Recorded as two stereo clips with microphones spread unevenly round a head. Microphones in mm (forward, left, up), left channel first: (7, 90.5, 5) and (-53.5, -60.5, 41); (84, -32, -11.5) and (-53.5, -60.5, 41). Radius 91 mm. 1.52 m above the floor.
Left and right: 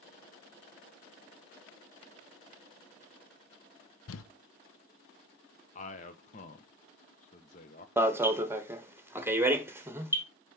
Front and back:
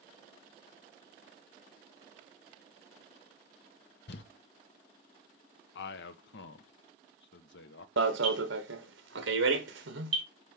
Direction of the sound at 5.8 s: 10° left.